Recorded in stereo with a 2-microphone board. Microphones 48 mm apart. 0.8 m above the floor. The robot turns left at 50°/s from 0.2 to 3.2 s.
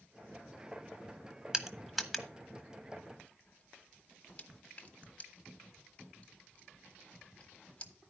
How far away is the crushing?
About 1.0 m.